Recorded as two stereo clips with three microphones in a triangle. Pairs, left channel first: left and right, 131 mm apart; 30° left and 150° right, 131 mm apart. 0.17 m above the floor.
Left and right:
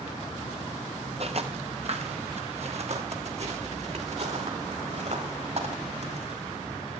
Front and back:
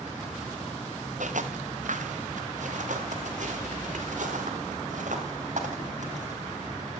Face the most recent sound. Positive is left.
turn(degrees=-125)